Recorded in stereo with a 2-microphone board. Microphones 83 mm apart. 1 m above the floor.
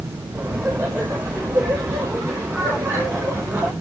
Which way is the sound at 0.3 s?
35° right (ahead or behind).